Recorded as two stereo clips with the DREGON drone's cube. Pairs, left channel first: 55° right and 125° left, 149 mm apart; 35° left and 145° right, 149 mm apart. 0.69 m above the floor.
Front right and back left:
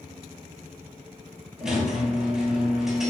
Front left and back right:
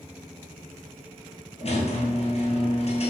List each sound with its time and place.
1.6 s a squeak: 40° left, 0.9 m